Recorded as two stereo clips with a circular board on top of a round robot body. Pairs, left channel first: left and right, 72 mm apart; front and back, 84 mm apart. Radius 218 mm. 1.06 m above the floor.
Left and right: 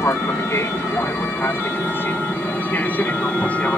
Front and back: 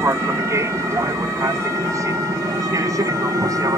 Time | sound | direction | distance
0.0 | an aircraft | 130° left | ?